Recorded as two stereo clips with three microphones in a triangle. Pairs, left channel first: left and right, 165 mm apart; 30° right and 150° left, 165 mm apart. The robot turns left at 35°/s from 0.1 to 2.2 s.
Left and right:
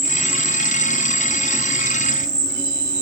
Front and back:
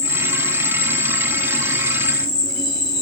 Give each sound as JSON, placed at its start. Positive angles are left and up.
{"t": 0.0, "sound": "an insect", "azimuth_deg": 5, "distance_m": 1.3}